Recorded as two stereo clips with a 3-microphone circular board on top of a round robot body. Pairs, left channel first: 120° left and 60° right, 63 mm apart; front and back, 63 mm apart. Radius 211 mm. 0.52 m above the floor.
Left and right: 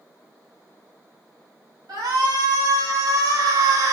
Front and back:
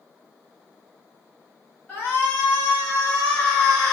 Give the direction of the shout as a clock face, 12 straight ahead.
2 o'clock.